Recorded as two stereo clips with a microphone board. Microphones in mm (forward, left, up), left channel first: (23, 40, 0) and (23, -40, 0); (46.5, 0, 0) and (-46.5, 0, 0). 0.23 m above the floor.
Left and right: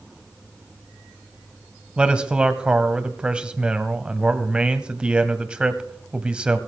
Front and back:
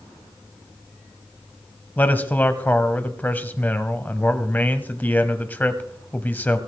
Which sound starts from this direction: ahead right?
A man speaking, at 2.0 s.